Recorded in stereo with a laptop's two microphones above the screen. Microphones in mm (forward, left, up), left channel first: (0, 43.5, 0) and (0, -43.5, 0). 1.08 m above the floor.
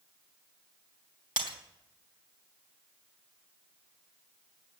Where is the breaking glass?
65° right (ahead or behind), 2.5 m.